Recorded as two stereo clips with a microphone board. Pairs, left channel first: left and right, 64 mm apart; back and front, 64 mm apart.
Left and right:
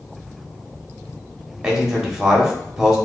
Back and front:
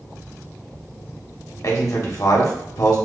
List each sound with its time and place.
1.6 s a man speaking: 165° right, 1.3 m